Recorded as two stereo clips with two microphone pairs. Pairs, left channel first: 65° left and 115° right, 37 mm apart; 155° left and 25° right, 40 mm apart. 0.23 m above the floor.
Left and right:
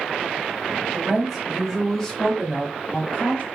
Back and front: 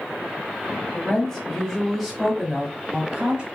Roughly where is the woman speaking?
Behind.